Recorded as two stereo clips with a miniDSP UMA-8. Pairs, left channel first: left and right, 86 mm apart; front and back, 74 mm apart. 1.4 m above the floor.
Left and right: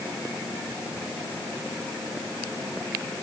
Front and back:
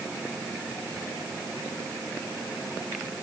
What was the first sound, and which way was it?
Only background noise.